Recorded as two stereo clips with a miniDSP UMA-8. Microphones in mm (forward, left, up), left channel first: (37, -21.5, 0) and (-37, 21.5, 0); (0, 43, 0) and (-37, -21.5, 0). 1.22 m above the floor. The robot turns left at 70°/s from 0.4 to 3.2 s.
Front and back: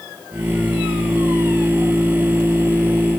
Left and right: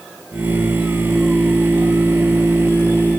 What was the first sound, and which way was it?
Only background noise.